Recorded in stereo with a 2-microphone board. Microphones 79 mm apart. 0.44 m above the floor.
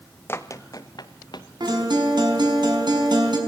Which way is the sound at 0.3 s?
30° left (ahead or behind).